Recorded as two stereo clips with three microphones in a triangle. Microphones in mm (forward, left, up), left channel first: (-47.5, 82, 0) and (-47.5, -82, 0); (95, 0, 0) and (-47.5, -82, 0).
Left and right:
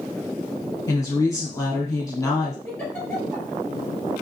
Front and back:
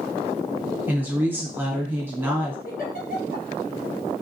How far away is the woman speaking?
About 1.2 m.